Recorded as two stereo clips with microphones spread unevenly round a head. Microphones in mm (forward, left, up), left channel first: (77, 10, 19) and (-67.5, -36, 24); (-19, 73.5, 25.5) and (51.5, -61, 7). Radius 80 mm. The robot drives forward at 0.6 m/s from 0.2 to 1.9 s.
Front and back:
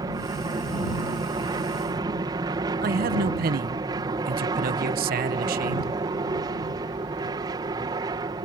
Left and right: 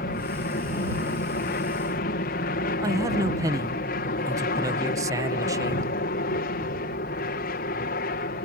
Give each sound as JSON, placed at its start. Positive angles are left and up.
{"t": 0.0, "sound": "an aircraft", "azimuth_deg": 135}
{"t": 2.8, "sound": "a man speaking", "azimuth_deg": -135}